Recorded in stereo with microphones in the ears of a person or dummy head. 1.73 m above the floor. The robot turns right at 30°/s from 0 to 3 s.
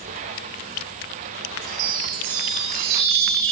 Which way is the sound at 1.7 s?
115° right.